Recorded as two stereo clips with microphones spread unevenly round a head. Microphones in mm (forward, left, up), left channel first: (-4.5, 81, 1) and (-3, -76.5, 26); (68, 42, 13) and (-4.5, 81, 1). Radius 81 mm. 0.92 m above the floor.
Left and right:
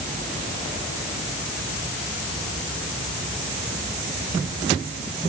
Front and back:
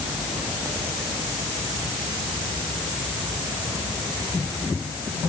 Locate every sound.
Only background noise.